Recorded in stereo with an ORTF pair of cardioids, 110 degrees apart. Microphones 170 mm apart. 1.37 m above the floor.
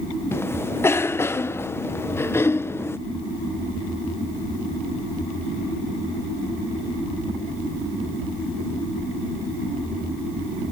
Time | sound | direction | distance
0.3 | a cough | 15° left | ?